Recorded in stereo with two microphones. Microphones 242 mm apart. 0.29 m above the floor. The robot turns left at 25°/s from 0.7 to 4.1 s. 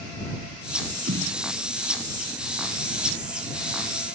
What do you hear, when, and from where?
1.1 s a snare drum: 65° right (ahead or behind)